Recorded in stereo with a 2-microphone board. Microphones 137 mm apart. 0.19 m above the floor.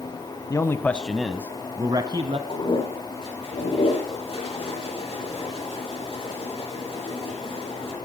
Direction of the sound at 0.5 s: 25° left (ahead or behind).